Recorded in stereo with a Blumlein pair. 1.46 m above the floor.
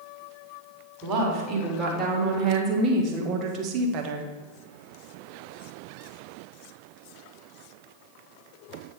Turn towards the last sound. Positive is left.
turn(degrees=-40)